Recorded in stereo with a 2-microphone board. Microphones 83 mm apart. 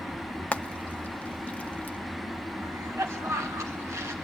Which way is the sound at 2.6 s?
35° right (ahead or behind).